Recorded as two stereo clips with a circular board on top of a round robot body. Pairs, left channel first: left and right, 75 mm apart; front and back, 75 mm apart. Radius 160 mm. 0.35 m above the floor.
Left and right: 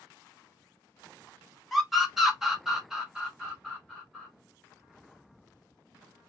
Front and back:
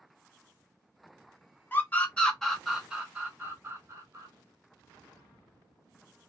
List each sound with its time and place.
1.7 s a scream: 5° right, 1.6 m; by 4.3 s 165° right, 1.9 m